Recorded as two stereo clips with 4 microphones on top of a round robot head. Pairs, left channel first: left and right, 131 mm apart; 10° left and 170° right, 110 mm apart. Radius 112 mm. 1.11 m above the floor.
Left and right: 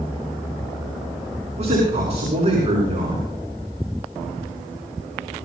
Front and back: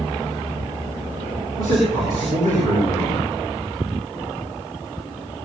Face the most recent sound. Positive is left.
turn(degrees=-50)